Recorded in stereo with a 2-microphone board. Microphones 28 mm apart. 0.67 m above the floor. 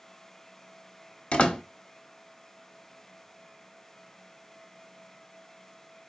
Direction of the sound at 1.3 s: 50° left (ahead or behind).